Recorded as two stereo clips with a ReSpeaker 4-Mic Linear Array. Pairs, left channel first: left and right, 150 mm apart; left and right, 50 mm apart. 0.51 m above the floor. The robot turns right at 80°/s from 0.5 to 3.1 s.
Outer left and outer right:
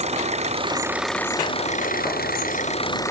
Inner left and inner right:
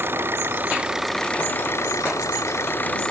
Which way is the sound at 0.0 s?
45° right.